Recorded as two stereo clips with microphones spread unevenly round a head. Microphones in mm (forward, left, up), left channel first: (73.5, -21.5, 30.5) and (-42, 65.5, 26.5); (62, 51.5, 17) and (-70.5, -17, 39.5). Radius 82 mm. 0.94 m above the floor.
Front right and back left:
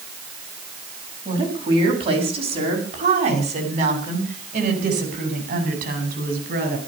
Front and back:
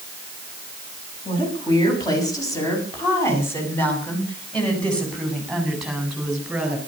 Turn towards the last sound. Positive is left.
turn(degrees=125)